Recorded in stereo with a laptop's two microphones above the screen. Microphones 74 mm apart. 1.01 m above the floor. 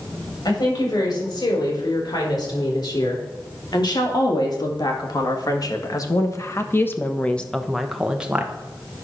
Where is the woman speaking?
80° left, 4.5 m; by 8.5 s 20° right (ahead or behind), 1.3 m.